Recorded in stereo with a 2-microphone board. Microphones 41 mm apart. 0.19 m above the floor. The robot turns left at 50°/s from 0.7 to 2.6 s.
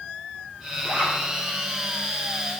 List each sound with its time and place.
0.8 s a zipper: 30° right (ahead or behind), 4.5 m; by 1.2 s 15° right (ahead or behind), 4.5 m